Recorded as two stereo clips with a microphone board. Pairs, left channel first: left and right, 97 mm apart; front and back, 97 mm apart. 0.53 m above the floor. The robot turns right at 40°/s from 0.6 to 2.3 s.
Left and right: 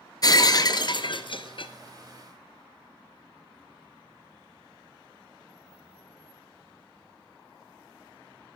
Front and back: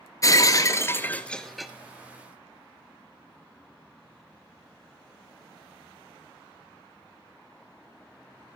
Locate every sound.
0.2 s breaking glass: 50° left, 0.8 m; by 1.7 s 95° left, 0.8 m